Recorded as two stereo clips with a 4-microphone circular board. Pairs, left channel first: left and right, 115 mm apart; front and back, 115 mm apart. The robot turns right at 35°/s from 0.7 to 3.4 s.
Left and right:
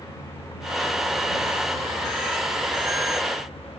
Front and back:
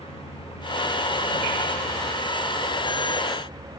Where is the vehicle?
35° left; by 3.8 s 130° left.